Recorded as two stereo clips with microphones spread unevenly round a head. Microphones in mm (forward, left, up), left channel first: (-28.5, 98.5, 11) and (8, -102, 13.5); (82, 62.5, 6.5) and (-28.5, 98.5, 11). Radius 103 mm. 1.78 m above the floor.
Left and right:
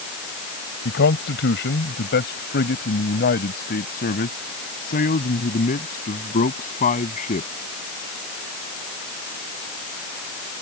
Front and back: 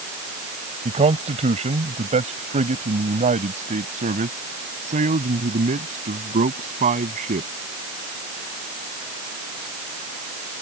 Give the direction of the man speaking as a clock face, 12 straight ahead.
7 o'clock.